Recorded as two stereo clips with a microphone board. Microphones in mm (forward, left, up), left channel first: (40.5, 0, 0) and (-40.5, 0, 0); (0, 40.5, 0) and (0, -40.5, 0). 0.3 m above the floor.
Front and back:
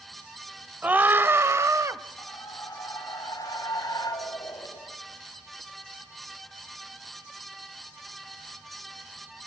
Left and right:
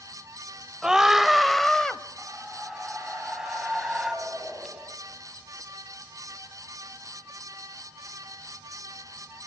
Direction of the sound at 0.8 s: 150° right.